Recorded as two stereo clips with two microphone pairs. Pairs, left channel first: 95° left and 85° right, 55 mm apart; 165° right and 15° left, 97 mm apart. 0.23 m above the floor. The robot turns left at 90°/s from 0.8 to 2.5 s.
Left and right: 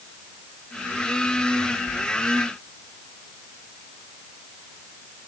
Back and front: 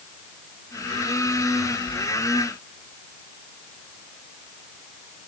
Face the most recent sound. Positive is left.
No sound to turn to.